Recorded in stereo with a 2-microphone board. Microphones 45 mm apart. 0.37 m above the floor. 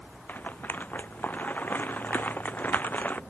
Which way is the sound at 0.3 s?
40° left (ahead or behind).